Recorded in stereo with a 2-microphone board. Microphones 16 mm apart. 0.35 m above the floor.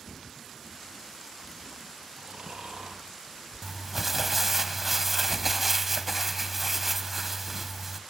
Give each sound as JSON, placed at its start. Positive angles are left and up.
{"t": 2.2, "sound": "snoring", "side_deg": -70, "distance_m": 4.5}
{"t": 3.6, "sound": "crumpling", "side_deg": -15, "distance_m": 1.1}